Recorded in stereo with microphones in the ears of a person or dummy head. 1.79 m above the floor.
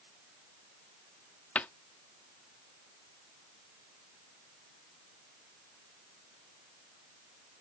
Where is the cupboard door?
5° left (ahead or behind).